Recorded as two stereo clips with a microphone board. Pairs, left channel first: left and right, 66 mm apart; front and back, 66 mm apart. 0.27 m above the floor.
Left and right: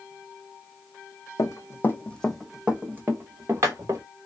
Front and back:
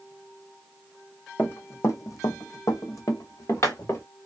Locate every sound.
1.4 s running footsteps: 55° left, 0.7 m; by 4.0 s 50° right, 1.3 m